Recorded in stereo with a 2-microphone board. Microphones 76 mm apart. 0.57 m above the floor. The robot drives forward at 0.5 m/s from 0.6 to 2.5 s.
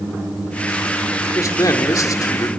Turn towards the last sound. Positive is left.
turn(degrees=50)  # may be behind; listen again after turning